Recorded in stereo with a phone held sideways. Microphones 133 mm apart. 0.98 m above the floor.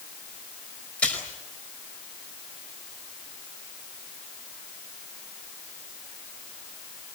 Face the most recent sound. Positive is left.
turn(degrees=10)  # may be behind; listen again after turning